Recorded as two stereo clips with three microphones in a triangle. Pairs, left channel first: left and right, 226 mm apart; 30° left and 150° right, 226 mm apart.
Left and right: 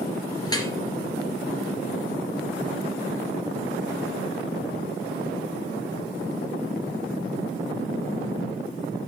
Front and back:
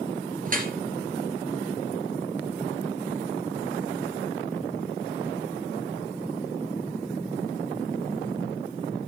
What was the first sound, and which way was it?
Dripping, 160° left.